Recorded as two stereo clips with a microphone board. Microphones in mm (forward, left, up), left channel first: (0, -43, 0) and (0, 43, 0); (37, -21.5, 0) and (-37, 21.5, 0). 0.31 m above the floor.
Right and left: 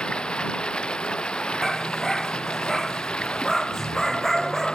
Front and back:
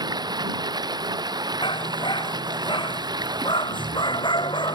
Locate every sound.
0.0 s running water: 170° right
1.6 s a dog barking: 5° right